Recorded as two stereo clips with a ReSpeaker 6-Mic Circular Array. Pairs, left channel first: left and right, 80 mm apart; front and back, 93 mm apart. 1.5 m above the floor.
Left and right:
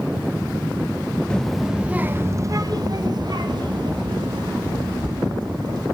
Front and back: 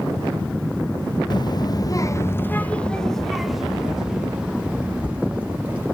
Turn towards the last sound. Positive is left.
turn(degrees=-110)